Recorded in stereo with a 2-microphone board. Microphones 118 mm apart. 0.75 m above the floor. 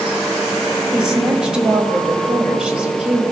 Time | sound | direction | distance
0.9 | a woman speaking | 5° right (ahead or behind) | 4.5 m